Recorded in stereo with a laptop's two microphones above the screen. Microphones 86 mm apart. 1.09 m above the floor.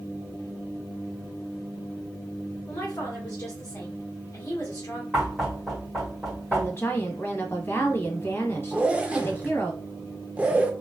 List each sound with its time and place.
2.7 s a woman speaking: 45° left (ahead or behind), 1.5 m
5.1 s knocking: centre (ahead or behind), 1.7 m
6.5 s a woman speaking: 30° left (ahead or behind), 1.0 m
8.7 s a zipper: 15° right (ahead or behind), 0.6 m